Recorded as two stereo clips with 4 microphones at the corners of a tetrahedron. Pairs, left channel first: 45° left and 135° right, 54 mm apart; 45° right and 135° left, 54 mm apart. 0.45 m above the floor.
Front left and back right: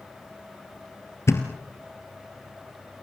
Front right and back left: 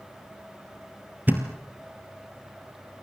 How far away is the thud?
About 2.5 m.